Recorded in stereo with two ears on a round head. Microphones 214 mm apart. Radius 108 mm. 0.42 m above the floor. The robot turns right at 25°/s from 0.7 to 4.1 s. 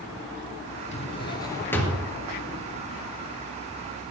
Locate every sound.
0.9 s a drawer: 30° left (ahead or behind), 2.5 m; by 2.1 s centre (ahead or behind), 2.5 m